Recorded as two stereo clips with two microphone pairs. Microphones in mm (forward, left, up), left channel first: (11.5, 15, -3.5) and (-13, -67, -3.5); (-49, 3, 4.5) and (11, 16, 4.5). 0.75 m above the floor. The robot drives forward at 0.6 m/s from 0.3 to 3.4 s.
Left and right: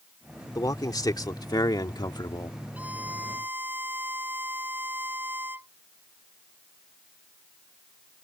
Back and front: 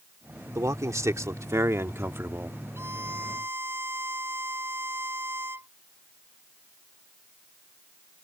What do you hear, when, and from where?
0.6 s a man speaking: 35° left; by 2.6 s 60° left
2.8 s a violin: 35° right; by 5.7 s 40° right